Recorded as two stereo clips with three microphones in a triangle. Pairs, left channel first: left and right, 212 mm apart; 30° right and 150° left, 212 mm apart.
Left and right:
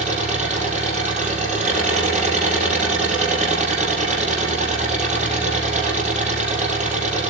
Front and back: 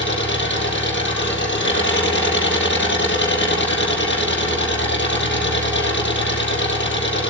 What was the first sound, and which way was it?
An engine running, 40° right.